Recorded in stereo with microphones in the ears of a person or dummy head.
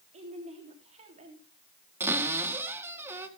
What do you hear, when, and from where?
0.1 s a woman speaking: 35° right (ahead or behind), 3.5 m
2.0 s a cupboard door: 15° right (ahead or behind), 2 m